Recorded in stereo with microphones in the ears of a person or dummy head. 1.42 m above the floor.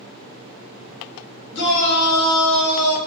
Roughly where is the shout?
Left.